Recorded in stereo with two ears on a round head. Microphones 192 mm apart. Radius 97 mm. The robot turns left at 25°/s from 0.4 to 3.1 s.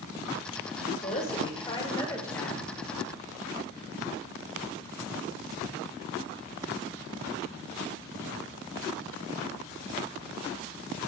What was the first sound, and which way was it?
A woman speaking, 45° left.